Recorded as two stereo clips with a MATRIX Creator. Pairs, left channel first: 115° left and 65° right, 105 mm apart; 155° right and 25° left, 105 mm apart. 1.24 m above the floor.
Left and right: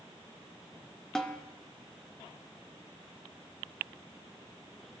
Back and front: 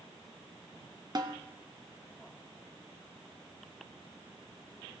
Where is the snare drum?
30° left, 0.6 m.